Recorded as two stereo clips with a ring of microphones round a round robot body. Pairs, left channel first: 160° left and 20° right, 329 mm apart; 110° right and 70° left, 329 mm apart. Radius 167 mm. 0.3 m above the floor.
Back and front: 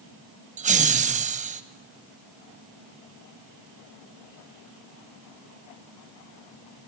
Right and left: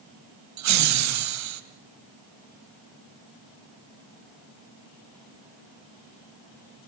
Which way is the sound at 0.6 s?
40° left.